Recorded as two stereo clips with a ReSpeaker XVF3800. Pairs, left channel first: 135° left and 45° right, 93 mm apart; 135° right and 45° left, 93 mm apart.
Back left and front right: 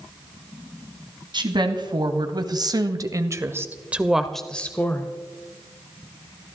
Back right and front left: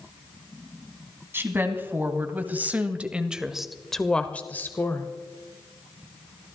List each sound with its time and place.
1.3 s a woman speaking: 20° right, 2.5 m; by 5.1 s straight behind, 1.2 m